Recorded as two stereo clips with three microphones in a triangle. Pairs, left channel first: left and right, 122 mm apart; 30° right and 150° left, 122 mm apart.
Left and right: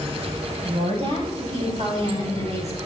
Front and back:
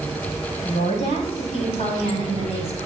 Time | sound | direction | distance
0.6 | a woman speaking | 50° right | 6 m